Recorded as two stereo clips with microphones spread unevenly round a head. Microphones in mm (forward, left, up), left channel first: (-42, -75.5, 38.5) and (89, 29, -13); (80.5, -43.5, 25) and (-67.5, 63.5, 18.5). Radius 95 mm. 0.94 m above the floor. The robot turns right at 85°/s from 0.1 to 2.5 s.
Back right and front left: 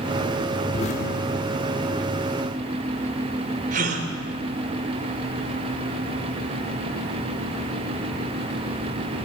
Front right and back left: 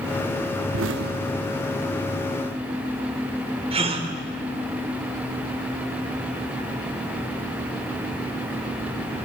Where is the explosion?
160° left, 0.8 m; by 1.9 s 105° right, 0.8 m.